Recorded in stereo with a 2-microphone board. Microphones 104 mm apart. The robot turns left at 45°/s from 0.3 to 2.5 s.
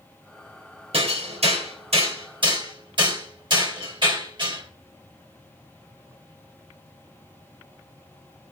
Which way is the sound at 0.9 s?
60° right (ahead or behind).